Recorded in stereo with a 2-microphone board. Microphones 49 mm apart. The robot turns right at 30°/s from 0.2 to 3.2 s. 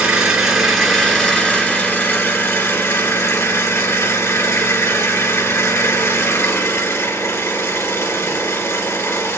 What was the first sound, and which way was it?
An engine running, 15° right.